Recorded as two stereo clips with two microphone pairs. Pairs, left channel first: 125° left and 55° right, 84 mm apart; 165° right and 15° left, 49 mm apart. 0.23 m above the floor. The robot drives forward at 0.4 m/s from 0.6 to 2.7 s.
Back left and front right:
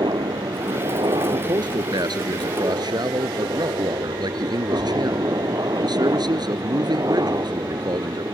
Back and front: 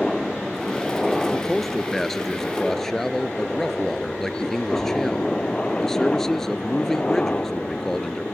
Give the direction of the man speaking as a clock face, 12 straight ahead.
3 o'clock.